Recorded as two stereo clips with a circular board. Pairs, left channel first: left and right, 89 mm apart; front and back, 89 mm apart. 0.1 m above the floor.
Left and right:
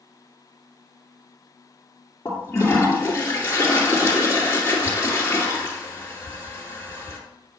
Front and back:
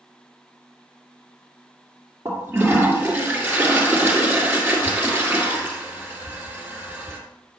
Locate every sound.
2.2 s a toilet flushing: 130° left, 2 m